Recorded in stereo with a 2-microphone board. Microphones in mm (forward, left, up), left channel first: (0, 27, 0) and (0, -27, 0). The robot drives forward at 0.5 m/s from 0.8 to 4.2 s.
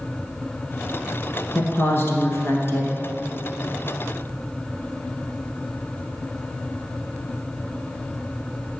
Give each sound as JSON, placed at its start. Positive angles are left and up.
{"t": 1.6, "sound": "a woman speaking", "side_deg": 45, "distance_m": 1.6}